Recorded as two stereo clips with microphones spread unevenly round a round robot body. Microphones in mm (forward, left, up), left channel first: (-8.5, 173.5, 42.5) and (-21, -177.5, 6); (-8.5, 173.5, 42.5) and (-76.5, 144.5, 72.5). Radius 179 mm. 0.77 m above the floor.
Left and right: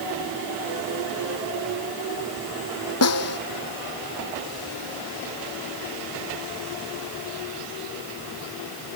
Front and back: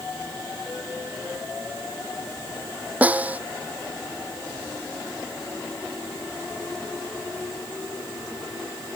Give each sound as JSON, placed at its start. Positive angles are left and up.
{"t": 3.0, "sound": "a snare drum", "azimuth_deg": 135}